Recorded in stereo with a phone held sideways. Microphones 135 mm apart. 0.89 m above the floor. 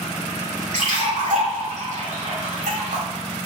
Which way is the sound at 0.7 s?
65° right (ahead or behind).